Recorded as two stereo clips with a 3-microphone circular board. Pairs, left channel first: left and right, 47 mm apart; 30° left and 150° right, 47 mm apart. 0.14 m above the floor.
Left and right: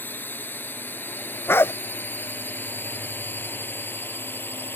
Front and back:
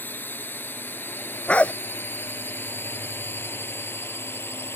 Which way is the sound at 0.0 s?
60° left.